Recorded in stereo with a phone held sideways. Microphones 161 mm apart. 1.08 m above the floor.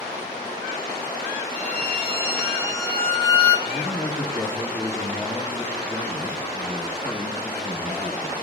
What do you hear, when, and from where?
1.5 s a violin: 80° right, 5 m
3.6 s a man speaking: centre (ahead or behind), 1.3 m